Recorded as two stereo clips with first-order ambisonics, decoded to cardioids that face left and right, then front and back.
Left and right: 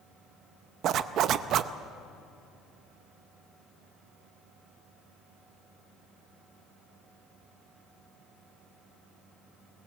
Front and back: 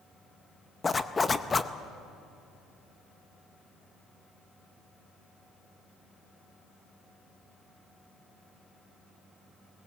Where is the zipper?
70° right, 0.5 m.